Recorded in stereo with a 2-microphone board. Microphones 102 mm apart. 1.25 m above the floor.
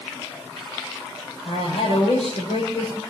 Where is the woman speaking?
85° left, 6.5 m.